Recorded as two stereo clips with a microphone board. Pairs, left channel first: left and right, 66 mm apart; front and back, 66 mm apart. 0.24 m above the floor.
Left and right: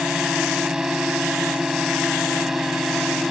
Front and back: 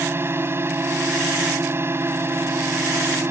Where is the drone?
165° right; by 3.3 s 175° right.